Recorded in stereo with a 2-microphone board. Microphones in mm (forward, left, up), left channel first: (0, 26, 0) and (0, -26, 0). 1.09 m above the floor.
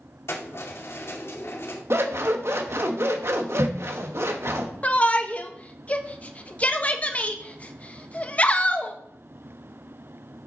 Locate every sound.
0.3 s keys jangling: 65° left (ahead or behind), 2 m
1.9 s scissors: 60° right (ahead or behind), 1.2 m
4.8 s a shout: 30° left (ahead or behind), 1.2 m